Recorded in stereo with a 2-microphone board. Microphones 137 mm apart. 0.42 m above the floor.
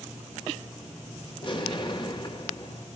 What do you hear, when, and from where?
1.4 s an explosion: 40° left (ahead or behind), 2.0 m